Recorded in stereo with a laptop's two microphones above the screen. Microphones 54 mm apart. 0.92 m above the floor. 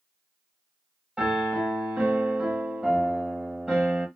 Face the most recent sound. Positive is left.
turn(degrees=-10)  # may be behind; listen again after turning